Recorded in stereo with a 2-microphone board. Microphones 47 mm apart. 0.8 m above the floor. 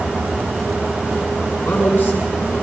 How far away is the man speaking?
About 7 m.